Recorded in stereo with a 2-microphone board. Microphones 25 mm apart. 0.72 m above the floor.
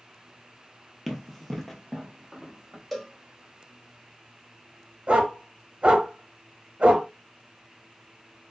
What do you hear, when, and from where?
1.1 s running footsteps: 5° left (ahead or behind), 0.7 m; by 2.8 s 15° left (ahead or behind), 1.5 m
2.9 s a cowbell: 5° left (ahead or behind), 0.6 m
5.1 s a dog barking: 55° right (ahead or behind), 0.8 m